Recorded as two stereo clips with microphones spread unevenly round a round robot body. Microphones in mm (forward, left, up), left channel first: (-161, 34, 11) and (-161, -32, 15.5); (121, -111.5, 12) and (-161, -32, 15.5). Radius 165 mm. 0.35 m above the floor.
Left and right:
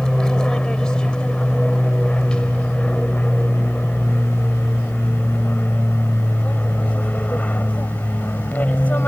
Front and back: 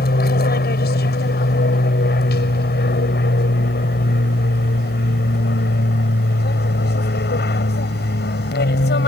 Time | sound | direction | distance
0.0 | an aircraft | 15° left | ?